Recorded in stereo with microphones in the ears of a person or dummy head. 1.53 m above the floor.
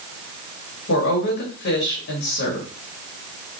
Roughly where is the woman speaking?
Left.